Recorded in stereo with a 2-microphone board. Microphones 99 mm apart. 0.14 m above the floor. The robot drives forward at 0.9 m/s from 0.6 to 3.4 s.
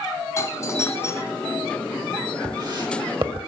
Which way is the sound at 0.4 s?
30° left (ahead or behind).